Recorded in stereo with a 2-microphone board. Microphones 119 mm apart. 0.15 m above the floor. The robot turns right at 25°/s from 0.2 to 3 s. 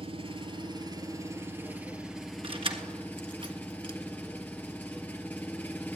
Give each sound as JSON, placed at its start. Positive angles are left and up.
{"t": 0.0, "sound": "an engine running", "azimuth_deg": -55, "distance_m": 1.8}
{"t": 2.4, "sound": "keys jangling", "side_deg": -50, "distance_m": 1.5}